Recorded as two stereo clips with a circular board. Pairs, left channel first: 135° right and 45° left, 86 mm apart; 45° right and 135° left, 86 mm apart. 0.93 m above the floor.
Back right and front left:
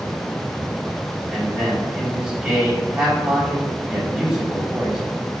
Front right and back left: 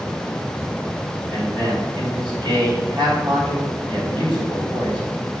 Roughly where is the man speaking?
Behind left.